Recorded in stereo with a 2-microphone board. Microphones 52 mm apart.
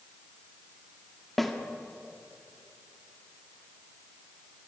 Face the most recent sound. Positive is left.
turn(degrees=0)  # may be behind; listen again after turning